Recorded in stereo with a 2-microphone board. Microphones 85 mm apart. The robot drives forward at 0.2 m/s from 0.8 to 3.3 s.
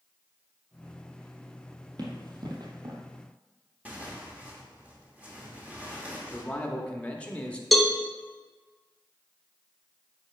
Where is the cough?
I don't hear a cough.